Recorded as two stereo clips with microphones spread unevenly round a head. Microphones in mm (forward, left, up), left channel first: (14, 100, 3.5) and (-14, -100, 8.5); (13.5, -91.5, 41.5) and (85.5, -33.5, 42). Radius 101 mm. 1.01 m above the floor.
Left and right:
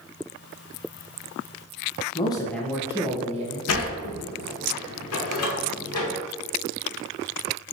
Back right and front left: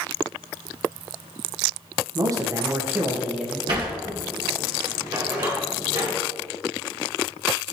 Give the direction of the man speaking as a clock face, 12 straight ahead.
11 o'clock.